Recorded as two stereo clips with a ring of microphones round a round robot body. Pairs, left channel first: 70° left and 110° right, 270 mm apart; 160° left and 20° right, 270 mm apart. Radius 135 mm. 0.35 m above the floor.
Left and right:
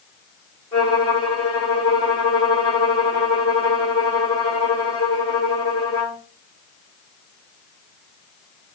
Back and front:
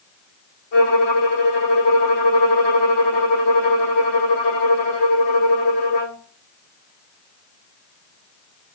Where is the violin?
140° left, 6 m.